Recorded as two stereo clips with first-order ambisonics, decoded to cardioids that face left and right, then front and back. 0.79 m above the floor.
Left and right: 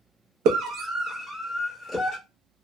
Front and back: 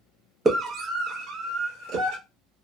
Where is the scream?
110° right, 0.5 m; by 2.2 s 175° right, 1.2 m.